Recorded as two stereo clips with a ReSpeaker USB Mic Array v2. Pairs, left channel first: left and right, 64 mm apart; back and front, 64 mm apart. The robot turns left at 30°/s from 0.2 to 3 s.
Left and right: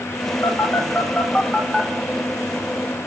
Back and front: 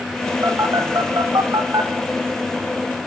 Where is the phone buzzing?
40° left, 2.5 m; by 1.9 s 5° right, 2.5 m.